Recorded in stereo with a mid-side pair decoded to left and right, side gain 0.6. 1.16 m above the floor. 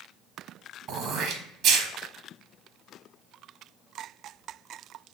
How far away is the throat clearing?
About 0.9 m.